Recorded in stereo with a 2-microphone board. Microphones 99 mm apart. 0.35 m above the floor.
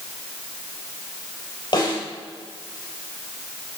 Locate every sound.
1.7 s a snare drum: 50° left (ahead or behind), 3.5 m